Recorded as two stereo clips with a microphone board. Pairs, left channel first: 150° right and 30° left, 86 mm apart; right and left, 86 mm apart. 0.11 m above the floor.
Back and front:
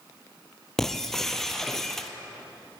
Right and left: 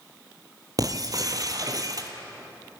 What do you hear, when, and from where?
0.8 s breaking glass: 125° left, 1.6 m